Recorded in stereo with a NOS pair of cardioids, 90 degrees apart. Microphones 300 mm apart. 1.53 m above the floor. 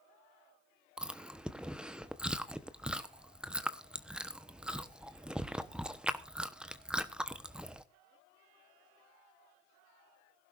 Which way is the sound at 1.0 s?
5° right.